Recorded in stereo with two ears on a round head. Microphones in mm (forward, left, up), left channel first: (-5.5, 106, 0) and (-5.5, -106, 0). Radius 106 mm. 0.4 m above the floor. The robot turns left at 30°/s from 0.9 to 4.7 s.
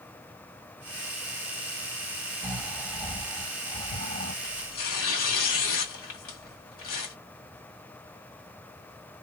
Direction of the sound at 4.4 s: 55° left (ahead or behind).